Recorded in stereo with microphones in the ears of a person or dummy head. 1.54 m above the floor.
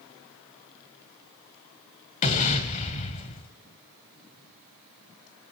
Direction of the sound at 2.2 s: 35° left (ahead or behind).